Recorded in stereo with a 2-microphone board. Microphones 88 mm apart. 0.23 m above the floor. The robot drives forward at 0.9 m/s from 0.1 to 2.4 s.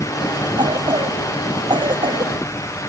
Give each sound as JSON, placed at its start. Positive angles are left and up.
{"t": 0.6, "sound": "a cough", "side_deg": -70}